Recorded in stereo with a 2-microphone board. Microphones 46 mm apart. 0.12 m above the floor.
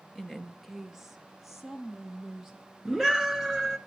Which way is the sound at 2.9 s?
15° right (ahead or behind).